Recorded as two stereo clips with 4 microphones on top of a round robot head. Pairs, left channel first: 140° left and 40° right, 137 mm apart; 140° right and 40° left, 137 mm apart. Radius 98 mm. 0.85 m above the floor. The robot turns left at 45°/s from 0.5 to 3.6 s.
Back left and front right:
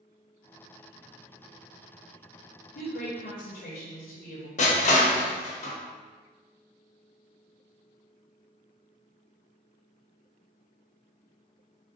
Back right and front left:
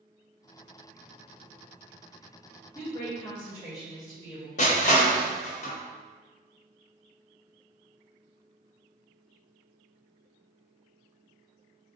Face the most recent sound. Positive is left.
turn(degrees=180)